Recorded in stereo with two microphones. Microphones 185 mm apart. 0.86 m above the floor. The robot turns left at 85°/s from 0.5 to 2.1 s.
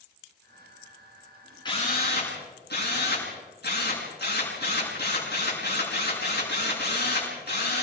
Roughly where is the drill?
Behind left.